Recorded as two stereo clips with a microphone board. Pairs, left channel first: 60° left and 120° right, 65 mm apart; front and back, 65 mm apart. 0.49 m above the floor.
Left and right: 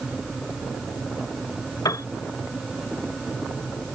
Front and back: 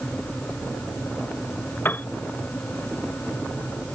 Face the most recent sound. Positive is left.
turn(degrees=55)